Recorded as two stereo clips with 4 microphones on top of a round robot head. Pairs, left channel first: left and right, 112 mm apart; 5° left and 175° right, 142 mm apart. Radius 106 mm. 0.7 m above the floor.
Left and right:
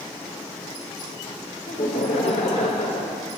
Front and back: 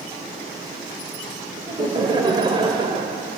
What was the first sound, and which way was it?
Laughter, 120° left.